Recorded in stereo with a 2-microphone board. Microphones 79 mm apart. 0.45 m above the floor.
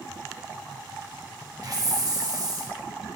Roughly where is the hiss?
Right.